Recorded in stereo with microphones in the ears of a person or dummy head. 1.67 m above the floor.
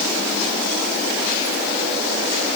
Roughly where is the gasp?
No gasp in this recording.